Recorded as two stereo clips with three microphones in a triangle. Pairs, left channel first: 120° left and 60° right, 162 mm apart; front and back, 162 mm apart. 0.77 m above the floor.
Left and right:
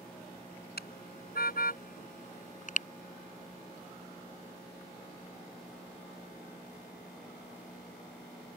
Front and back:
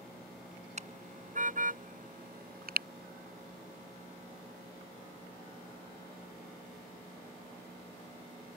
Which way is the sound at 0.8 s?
135° left.